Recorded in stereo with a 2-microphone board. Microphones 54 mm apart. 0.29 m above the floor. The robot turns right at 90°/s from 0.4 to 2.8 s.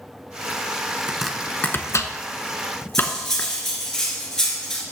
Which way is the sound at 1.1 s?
15° right (ahead or behind).